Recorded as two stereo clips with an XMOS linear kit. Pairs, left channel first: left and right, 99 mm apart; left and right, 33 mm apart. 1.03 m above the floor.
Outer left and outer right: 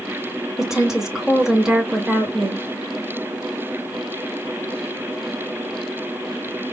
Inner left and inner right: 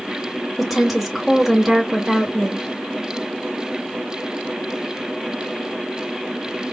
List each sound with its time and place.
0.6 s a woman speaking: 5° right (ahead or behind), 1.5 m